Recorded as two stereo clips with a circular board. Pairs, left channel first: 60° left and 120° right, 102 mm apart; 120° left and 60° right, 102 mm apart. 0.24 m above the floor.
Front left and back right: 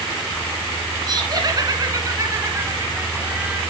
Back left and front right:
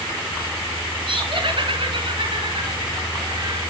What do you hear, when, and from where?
1.1 s laughter: 80° right, 3 m; by 3.6 s 45° right, 2.0 m